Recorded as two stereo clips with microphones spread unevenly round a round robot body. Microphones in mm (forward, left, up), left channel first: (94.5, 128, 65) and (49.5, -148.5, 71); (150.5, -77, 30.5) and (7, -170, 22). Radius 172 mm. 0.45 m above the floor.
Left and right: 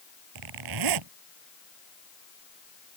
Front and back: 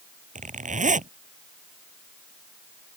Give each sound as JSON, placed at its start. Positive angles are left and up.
{"t": 0.3, "sound": "a zipper", "azimuth_deg": -100}